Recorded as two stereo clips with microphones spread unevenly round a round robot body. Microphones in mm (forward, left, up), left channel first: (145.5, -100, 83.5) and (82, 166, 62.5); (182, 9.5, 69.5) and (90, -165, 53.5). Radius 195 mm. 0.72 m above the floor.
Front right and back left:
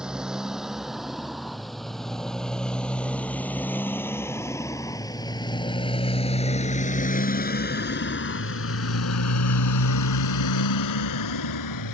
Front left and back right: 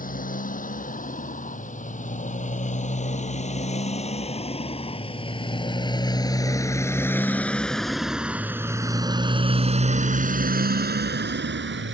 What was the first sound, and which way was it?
A motorcycle, 15° left.